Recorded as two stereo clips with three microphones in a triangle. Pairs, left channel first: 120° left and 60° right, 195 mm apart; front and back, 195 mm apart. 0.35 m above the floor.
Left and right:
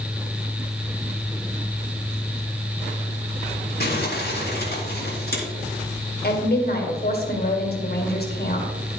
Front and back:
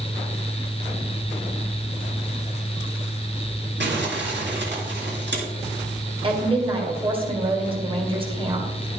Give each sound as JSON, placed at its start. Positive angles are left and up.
{"t": 3.8, "sound": "crumpling", "azimuth_deg": 155, "distance_m": 3.5}
{"t": 6.2, "sound": "a woman speaking", "azimuth_deg": 125, "distance_m": 2.0}